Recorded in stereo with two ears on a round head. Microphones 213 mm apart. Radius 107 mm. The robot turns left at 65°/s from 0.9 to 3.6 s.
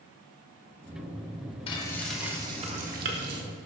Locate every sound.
1.7 s frying: 30° left, 1.3 m; by 3.4 s 85° right, 1.3 m